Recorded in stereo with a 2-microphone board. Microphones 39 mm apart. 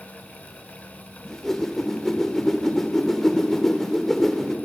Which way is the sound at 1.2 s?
10° left (ahead or behind).